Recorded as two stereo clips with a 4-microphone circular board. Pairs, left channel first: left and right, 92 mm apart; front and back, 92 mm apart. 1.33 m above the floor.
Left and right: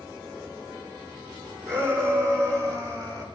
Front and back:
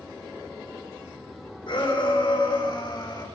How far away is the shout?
About 4.5 m.